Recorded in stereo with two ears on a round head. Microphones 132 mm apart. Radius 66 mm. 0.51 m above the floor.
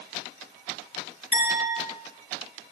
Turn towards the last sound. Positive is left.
turn(degrees=45)  # may be behind; listen again after turning